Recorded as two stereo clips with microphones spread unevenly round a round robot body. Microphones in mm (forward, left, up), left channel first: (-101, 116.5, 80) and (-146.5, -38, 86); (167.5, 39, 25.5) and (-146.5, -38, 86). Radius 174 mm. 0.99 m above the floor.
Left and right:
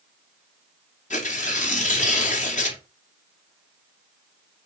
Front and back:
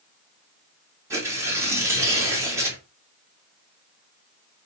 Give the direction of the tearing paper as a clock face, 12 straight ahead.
8 o'clock.